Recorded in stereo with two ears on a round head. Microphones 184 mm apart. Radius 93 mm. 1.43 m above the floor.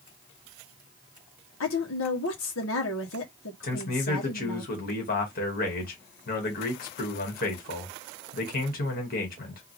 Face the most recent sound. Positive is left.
turn(degrees=45)  # may be behind; listen again after turning